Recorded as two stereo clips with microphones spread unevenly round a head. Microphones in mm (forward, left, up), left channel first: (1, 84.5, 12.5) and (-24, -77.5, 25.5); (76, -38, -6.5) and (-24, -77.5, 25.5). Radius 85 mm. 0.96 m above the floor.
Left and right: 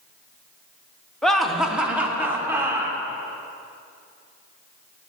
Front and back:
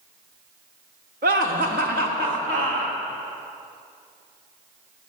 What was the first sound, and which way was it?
Laughter, 165° left.